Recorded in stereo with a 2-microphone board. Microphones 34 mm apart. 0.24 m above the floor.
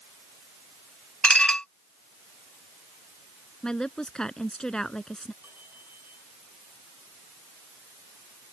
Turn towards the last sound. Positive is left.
turn(degrees=-80)